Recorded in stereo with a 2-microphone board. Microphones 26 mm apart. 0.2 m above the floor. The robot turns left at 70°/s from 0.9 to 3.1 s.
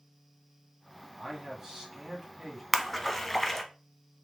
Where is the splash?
5° right (ahead or behind), 0.7 m; by 3.6 s 15° left (ahead or behind), 0.7 m.